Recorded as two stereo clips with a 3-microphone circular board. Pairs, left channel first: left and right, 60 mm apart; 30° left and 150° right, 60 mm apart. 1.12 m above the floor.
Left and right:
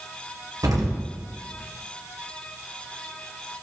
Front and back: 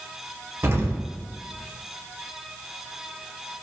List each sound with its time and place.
0.6 s an explosion: 105° right, 1.6 m